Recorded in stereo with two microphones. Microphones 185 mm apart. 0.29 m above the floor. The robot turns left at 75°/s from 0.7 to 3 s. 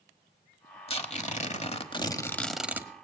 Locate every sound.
0.9 s tearing paper: 125° left, 1.2 m; by 2.9 s 25° right, 1.2 m